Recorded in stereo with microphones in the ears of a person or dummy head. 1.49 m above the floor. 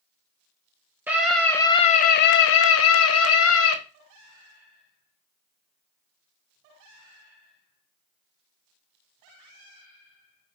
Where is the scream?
10° right (ahead or behind), 0.6 m; by 3.8 s 80° left, 1.2 m.